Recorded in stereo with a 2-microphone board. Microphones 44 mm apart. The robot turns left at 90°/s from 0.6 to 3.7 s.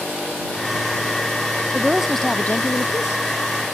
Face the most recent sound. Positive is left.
turn(degrees=35)